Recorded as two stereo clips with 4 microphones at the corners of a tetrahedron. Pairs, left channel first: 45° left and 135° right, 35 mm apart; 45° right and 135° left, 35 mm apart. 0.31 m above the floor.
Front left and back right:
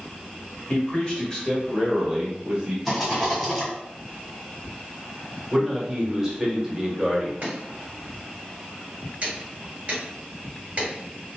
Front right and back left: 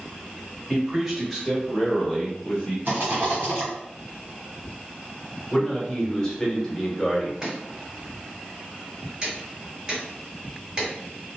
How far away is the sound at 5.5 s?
About 0.9 m.